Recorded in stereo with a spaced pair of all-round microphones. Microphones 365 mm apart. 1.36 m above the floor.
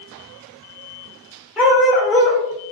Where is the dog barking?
Centre (ahead or behind), 1.0 m.